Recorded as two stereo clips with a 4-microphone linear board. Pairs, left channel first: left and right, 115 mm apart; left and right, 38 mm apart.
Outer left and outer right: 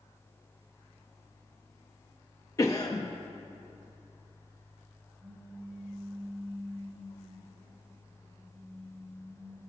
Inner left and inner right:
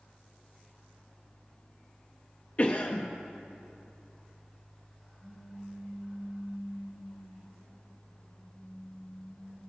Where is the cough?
30° left (ahead or behind), 0.7 m.